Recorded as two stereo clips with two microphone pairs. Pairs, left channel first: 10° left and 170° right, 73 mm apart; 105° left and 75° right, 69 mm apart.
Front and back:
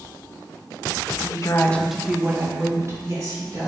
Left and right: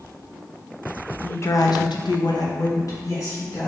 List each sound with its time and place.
1.2 s a woman speaking: 40° left, 0.6 m; by 3.7 s 150° left, 1.8 m